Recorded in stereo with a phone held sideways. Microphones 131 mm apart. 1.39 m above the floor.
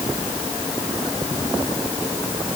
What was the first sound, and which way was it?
Only background noise.